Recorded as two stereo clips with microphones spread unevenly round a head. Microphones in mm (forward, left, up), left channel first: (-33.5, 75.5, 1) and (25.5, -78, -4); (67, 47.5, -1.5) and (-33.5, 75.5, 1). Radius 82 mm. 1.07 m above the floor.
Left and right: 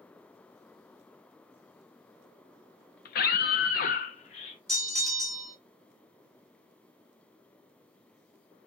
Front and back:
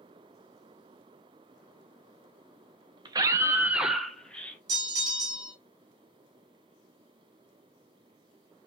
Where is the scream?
125° left, 0.7 m; by 4.6 s 55° left, 0.9 m.